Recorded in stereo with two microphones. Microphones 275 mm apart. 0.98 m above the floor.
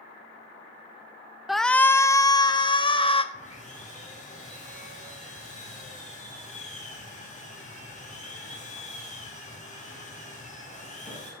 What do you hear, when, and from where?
1.5 s a shout: centre (ahead or behind), 0.6 m; by 3.2 s 20° left (ahead or behind), 1.6 m
3.3 s sawing: 25° left (ahead or behind), 5 m